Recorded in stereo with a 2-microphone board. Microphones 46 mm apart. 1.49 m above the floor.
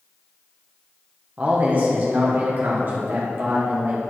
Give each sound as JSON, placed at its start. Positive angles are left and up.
{"t": 1.4, "sound": "a man speaking", "side_deg": -30, "distance_m": 1.4}